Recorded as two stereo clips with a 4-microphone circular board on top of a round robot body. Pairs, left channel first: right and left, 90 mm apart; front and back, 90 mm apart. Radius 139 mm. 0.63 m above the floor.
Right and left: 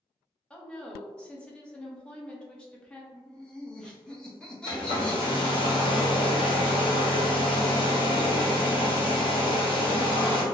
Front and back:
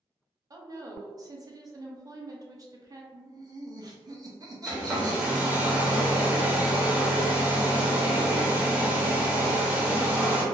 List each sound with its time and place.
0.5 s a woman speaking: 165° right, 0.9 m
3.1 s laughter: 170° right, 1.1 m
4.7 s a hair dryer: 105° right, 1.0 m